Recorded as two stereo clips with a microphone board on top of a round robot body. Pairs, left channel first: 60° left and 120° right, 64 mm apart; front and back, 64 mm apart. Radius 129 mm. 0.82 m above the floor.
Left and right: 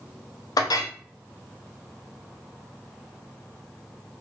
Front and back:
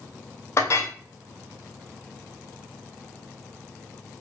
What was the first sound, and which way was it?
A clink, 45° left.